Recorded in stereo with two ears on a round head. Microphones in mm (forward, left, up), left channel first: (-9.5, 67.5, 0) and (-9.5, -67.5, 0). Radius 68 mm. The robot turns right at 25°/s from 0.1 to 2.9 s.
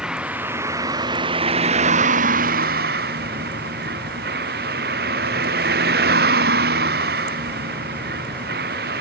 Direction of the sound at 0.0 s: 175° right.